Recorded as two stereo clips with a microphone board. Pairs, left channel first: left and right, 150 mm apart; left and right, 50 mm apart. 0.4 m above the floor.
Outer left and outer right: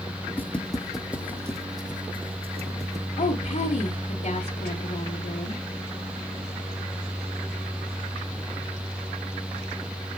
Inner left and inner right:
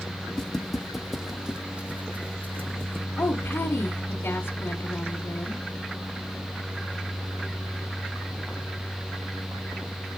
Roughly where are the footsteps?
Centre.